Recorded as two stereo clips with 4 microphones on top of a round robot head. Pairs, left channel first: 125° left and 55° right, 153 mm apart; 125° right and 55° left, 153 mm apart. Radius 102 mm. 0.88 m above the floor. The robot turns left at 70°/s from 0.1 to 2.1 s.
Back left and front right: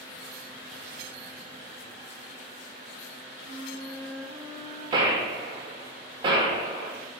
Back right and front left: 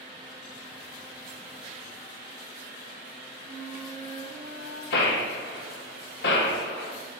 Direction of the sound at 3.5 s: 10° left.